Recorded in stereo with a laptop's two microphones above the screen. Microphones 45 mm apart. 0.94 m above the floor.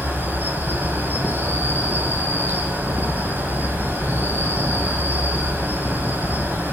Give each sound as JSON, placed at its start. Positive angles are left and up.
{"t": 0.0, "sound": "an insect", "side_deg": -45, "distance_m": 1.7}